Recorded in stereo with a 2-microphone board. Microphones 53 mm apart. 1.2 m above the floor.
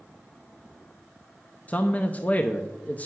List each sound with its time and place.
1.7 s a man speaking: 30° left (ahead or behind), 0.6 m